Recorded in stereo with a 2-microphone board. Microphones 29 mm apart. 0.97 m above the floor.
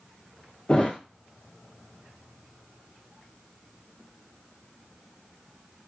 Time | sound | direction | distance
0.7 | a thud | 30° left (ahead or behind) | 0.7 m